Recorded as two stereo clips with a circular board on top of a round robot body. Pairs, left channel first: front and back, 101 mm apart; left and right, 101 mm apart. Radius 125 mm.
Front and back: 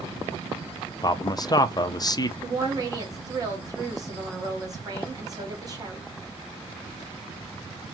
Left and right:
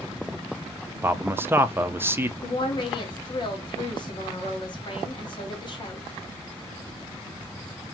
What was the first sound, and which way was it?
A man speaking, 30° right.